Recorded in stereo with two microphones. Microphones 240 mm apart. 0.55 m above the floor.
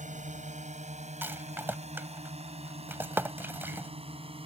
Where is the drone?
30° right (ahead or behind); by 4.5 s 25° right (ahead or behind).